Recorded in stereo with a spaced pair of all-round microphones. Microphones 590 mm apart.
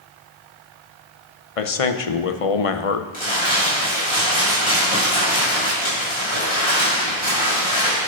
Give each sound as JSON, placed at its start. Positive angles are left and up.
{"t": 1.6, "sound": "a man speaking", "side_deg": 70, "distance_m": 0.8}
{"t": 3.1, "sound": "crumpling", "side_deg": 55, "distance_m": 5.5}